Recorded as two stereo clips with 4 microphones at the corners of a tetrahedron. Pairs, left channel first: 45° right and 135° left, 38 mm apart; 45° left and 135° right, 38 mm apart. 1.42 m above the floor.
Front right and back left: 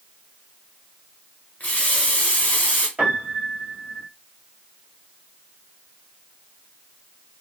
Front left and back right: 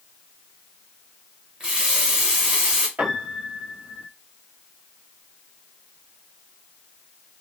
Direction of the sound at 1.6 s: 80° right.